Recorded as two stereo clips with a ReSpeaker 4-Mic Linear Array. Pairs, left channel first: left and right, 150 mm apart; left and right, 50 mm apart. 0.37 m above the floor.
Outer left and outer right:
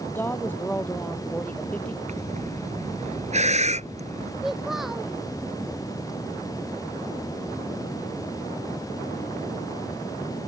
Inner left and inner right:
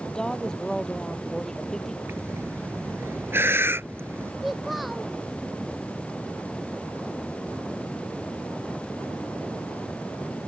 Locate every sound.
0.1 s a woman speaking: 15° left (ahead or behind); by 2.0 s 10° left (ahead or behind)
2.1 s breathing: 50° right (ahead or behind)
4.4 s a child speaking: centre (ahead or behind)